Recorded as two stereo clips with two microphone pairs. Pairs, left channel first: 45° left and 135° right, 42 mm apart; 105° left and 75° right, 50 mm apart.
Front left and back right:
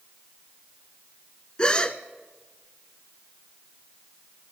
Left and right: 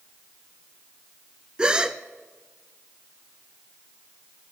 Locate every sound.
1.6 s a gasp: 10° right, 0.8 m